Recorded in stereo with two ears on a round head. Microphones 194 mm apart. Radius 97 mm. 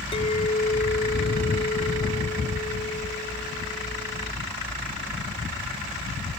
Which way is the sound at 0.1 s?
25° left (ahead or behind).